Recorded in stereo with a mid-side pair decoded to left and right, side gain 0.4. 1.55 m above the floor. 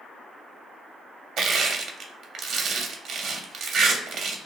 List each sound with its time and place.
1.4 s crushing: 70° right, 0.5 m